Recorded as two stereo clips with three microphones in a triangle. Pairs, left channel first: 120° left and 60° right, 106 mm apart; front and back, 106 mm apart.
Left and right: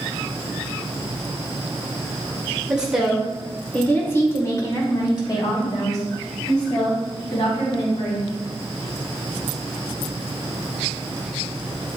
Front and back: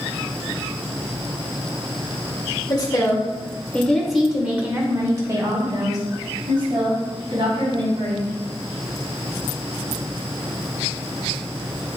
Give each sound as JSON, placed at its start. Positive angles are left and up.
{"t": 2.7, "sound": "a woman speaking", "azimuth_deg": 15, "distance_m": 1.6}